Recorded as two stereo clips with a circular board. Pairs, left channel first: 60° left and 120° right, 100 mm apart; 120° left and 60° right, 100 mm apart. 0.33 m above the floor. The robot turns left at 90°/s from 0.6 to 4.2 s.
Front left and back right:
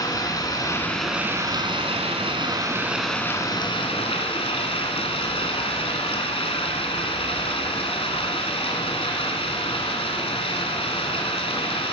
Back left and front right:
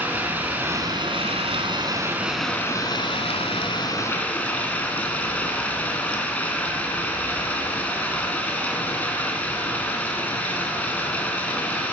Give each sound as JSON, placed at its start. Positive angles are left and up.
{"t": 0.0, "sound": "running water", "azimuth_deg": 10, "distance_m": 1.9}